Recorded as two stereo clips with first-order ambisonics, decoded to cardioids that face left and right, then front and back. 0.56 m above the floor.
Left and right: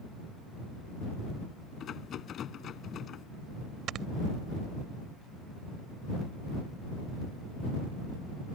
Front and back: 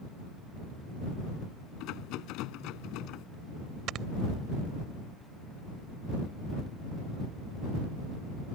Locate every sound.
1.8 s a rattle: 35° left
3.9 s snoring: 135° right